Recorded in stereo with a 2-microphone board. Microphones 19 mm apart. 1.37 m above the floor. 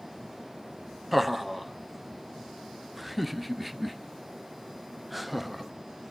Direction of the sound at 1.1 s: 5° right (ahead or behind).